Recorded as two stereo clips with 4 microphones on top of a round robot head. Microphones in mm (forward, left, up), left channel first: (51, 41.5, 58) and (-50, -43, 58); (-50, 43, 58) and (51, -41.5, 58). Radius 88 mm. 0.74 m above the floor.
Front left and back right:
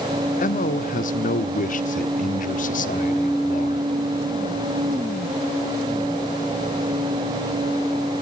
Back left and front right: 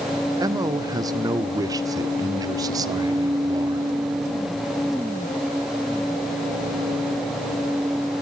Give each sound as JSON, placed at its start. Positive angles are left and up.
{"t": 0.4, "sound": "a man speaking", "azimuth_deg": 25, "distance_m": 1.5}